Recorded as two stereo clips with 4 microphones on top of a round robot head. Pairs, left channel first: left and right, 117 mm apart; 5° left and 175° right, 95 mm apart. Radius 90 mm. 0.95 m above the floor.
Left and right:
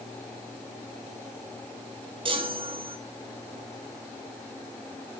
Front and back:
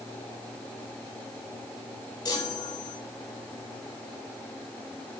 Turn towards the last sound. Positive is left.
turn(degrees=-50)